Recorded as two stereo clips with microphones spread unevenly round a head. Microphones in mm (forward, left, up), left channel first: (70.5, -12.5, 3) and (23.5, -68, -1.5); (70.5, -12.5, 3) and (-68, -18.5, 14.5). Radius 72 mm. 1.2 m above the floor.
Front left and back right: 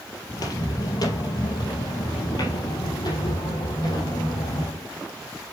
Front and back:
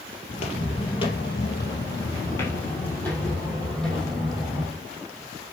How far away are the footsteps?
About 2.0 m.